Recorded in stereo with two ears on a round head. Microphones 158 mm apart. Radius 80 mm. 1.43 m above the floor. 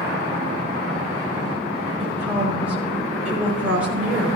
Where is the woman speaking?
10° right (ahead or behind), 5 m.